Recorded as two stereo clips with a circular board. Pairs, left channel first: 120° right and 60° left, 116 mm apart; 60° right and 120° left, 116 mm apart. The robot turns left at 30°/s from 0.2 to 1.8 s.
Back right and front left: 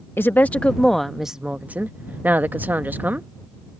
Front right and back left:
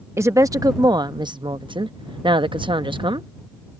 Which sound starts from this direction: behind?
A woman speaking, at 0.2 s.